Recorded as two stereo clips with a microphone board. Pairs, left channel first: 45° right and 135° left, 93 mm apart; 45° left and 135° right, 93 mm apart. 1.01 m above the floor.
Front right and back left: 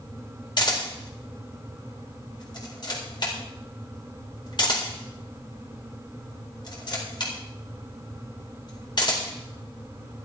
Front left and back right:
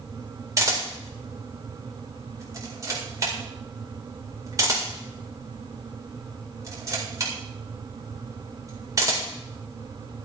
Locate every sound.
0.6 s a camera shutter: 80° right, 4.5 m